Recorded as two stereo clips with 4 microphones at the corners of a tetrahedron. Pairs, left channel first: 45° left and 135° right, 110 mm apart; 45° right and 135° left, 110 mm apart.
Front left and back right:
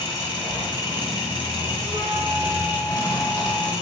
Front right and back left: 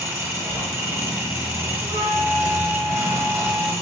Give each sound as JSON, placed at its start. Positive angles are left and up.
{"t": 0.0, "sound": "an engine running", "azimuth_deg": 75, "distance_m": 0.8}
{"t": 1.8, "sound": "a flute", "azimuth_deg": 170, "distance_m": 1.3}